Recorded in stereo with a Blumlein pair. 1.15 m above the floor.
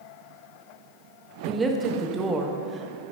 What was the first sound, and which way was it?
A woman speaking, 15° right.